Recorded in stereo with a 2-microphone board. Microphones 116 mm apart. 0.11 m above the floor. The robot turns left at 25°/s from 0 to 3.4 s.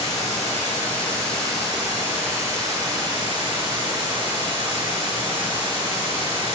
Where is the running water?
40° left, 1.6 m; by 6.5 s 45° right, 1.6 m.